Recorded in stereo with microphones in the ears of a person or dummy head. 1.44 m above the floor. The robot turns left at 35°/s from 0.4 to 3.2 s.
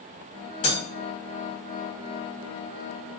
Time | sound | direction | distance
0.6 | breaking glass | 40° left (ahead or behind) | 1.4 m